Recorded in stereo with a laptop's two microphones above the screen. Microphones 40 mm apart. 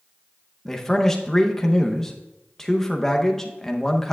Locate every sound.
0.7 s a man speaking: 10° left (ahead or behind), 0.7 m